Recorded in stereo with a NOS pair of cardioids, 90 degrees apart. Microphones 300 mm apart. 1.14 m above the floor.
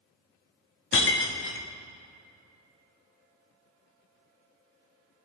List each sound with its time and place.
0.9 s breaking glass: 45° left, 1.1 m